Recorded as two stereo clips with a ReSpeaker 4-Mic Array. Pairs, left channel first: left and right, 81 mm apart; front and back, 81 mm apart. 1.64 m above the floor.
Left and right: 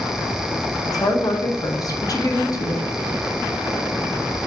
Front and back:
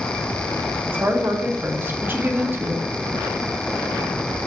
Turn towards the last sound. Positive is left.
turn(degrees=120)